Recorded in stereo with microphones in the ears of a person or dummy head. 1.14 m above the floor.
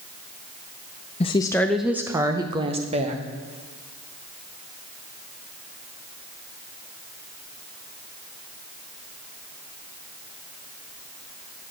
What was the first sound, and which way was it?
A woman speaking, 25° left (ahead or behind).